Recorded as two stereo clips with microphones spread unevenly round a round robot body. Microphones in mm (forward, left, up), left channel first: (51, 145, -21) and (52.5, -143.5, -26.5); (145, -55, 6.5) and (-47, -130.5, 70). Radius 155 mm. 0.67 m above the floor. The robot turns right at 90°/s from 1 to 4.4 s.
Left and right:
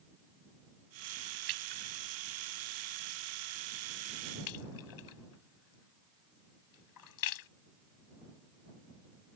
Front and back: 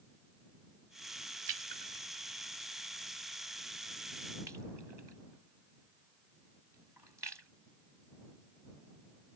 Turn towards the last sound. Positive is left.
turn(degrees=120)